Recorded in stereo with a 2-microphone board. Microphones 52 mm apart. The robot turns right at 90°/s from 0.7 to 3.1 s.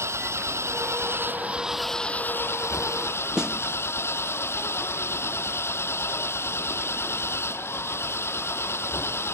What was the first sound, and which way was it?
An engine running, 100° right.